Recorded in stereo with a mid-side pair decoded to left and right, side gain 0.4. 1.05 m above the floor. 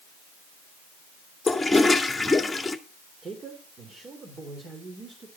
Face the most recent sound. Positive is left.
turn(degrees=-45)